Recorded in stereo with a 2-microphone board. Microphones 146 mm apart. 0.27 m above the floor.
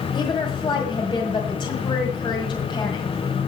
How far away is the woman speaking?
About 1.7 m.